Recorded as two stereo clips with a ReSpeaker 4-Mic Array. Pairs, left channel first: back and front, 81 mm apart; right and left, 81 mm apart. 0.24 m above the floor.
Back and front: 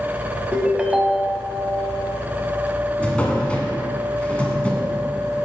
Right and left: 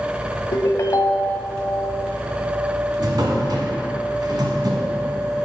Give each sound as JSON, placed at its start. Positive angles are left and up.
{"t": 0.5, "sound": "a ringtone", "azimuth_deg": -75, "distance_m": 0.6}
{"t": 3.0, "sound": "a drawer", "azimuth_deg": 105, "distance_m": 1.2}